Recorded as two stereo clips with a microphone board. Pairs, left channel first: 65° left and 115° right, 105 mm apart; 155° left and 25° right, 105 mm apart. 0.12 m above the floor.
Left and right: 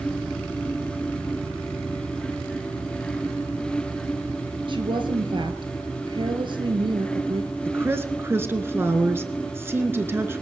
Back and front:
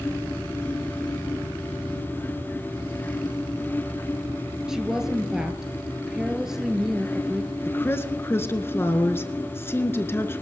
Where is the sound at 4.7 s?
105° right, 1.8 m.